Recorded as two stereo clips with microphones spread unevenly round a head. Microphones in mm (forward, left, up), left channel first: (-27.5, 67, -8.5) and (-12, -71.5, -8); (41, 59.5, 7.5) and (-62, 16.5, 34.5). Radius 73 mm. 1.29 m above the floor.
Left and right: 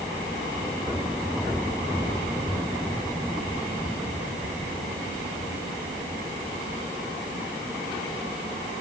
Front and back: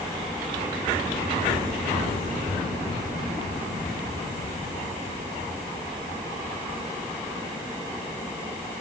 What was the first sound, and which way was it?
Only background noise.